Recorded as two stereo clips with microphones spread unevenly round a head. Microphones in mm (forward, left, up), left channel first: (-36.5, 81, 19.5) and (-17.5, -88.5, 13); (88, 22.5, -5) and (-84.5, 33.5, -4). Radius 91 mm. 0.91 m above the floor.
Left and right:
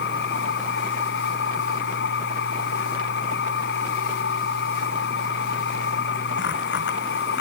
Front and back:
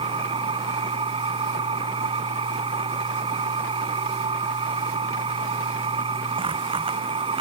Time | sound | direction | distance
0.0 | a machine running | 115° left | ?